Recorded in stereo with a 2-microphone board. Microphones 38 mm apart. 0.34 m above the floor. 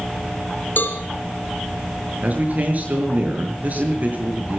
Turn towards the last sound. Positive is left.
turn(degrees=-45)  # may be behind; listen again after turning